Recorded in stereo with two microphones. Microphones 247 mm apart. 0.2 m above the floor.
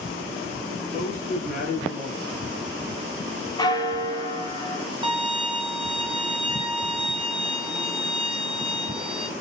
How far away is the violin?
About 1.3 m.